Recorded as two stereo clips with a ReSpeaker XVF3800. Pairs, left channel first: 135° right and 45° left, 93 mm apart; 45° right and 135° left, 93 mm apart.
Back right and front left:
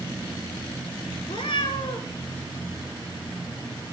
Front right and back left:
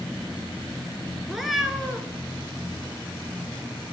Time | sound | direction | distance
1.3 | a cat meowing | 135° right | 0.7 m